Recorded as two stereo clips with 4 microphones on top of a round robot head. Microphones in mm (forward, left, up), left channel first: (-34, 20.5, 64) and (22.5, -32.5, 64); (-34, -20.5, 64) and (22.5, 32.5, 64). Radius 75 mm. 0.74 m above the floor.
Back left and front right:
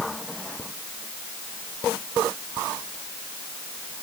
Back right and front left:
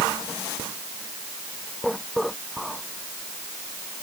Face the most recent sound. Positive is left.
No sound to turn to.